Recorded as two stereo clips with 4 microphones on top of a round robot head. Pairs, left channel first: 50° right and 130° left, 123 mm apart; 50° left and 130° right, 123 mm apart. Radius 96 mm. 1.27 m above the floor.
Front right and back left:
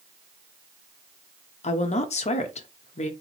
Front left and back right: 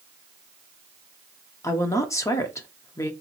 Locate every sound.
1.6 s a woman speaking: 20° right, 0.7 m